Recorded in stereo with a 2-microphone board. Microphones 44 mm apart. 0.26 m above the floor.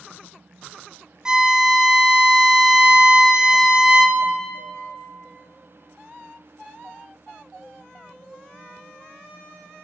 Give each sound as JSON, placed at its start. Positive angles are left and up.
{"t": 1.2, "sound": "a violin", "side_deg": -15, "distance_m": 0.5}